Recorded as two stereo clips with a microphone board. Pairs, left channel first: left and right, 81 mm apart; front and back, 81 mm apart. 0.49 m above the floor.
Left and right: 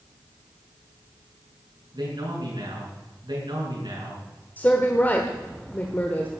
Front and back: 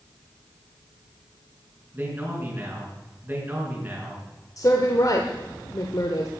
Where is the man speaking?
115° right, 5.5 m.